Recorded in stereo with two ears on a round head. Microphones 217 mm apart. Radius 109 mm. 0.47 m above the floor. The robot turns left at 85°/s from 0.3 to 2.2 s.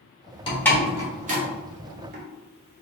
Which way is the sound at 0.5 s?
20° left (ahead or behind).